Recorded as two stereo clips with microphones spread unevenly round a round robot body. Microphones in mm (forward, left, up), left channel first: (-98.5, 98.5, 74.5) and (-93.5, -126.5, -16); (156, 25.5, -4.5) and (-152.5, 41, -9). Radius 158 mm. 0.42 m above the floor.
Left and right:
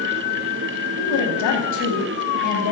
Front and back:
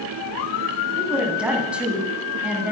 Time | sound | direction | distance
1.0 | a woman speaking | 90° left | 3.5 m